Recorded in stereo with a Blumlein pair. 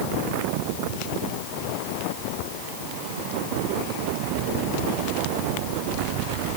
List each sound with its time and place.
Only background noise.